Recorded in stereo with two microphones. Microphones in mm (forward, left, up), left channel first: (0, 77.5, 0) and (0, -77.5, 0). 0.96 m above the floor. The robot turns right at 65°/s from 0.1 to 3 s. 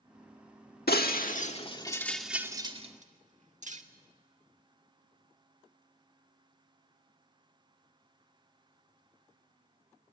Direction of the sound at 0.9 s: 85° left.